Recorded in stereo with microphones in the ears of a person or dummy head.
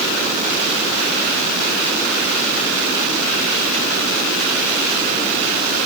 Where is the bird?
No bird in this recording.